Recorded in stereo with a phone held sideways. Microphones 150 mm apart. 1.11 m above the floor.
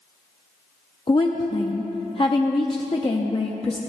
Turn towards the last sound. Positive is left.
turn(degrees=35)  # may be behind; listen again after turning